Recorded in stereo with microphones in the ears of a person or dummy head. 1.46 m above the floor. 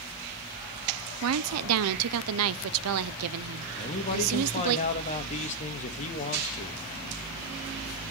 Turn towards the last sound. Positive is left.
turn(degrees=40)  # may be behind; listen again after turning